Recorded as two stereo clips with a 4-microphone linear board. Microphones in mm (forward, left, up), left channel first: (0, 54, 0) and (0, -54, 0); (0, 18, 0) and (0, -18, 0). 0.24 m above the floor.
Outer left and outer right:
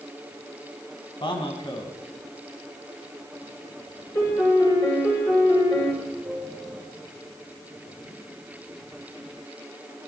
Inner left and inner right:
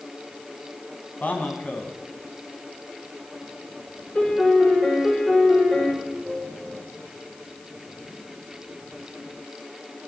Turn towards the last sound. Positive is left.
turn(degrees=-10)  # may be behind; listen again after turning